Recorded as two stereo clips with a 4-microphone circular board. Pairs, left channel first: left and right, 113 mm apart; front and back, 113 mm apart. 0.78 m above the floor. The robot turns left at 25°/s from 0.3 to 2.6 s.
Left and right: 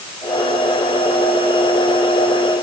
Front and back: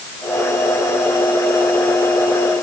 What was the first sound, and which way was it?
Only background noise.